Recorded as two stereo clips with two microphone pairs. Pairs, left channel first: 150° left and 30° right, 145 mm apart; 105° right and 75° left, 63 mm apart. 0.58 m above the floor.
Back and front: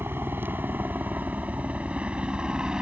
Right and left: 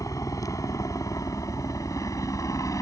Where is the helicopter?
100° right; by 2.8 s 110° right.